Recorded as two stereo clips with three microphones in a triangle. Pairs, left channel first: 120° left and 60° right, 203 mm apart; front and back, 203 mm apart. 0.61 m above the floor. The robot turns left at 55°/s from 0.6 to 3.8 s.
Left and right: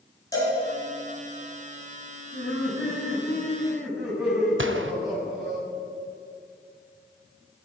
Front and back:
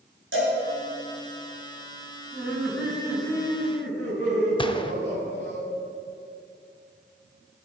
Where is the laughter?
110° left, 5 m; by 5.6 s 25° left, 5 m.